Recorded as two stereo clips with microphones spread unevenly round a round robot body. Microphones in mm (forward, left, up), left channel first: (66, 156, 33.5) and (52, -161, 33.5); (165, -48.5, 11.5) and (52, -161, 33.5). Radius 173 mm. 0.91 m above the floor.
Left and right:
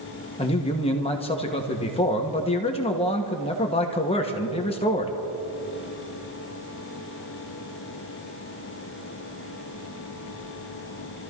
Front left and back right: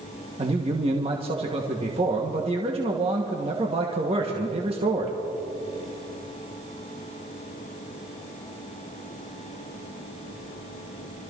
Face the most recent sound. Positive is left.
turn(degrees=160)